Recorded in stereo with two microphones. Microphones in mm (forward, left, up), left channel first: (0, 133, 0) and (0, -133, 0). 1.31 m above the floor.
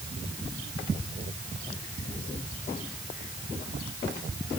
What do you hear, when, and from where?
Only background noise.